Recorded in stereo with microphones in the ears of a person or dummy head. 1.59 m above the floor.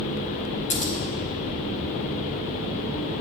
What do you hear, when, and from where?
0.7 s scissors: 40° left (ahead or behind), 0.9 m